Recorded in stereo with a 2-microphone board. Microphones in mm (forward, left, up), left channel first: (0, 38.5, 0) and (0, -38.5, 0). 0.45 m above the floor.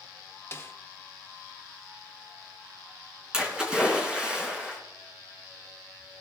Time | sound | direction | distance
0.5 | a snare drum | 30° left (ahead or behind) | 1.0 m
3.3 | a splash | 15° right (ahead or behind) | 3.5 m